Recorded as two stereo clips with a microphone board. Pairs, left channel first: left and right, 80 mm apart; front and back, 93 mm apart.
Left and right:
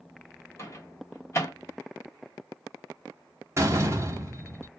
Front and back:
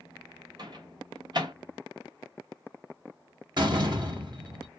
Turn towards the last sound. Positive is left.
turn(degrees=-145)